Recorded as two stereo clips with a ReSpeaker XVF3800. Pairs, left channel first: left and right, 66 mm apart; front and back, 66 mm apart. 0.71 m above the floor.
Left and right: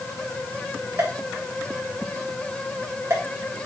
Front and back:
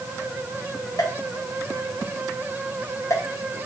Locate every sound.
1.0 s a pop: 40° right, 3 m